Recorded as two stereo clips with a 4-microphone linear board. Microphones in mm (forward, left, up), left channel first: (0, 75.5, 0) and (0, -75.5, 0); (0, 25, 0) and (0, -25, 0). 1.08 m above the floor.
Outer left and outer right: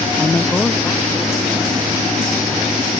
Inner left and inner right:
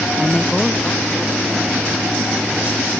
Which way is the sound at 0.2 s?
15° left (ahead or behind).